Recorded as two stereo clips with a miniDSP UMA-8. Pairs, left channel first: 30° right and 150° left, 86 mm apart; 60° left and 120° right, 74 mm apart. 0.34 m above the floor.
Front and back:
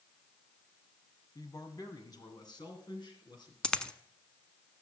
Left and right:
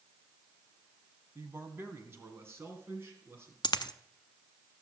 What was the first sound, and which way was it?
A man speaking, 70° right.